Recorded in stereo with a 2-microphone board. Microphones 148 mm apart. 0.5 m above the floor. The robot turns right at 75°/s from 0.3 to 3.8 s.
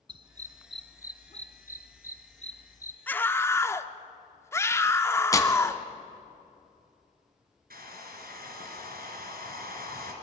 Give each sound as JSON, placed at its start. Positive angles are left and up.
{"t": 0.1, "sound": "a dog barking", "side_deg": -30, "distance_m": 1.0}
{"t": 3.1, "sound": "a scream", "side_deg": 10, "distance_m": 0.8}
{"t": 5.3, "sound": "tearing paper", "side_deg": 20, "distance_m": 1.3}
{"t": 7.7, "sound": "a hair dryer", "side_deg": -85, "distance_m": 2.5}